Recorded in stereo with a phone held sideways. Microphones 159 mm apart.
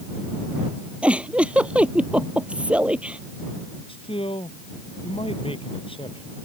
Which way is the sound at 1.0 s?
5° right (ahead or behind).